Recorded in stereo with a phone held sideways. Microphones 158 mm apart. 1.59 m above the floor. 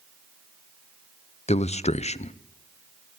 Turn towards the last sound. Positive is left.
turn(degrees=40)  # may be behind; listen again after turning